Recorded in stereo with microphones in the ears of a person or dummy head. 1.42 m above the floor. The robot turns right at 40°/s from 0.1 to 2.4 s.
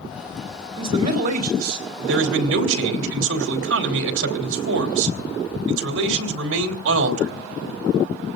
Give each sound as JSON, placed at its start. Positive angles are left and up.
{"t": 0.8, "sound": "a man speaking", "azimuth_deg": -155, "distance_m": 3.5}